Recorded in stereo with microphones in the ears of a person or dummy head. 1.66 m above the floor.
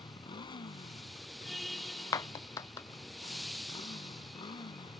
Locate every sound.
0.0 s a motorcycle: 25° left (ahead or behind)
2.1 s a clap: 20° left (ahead or behind)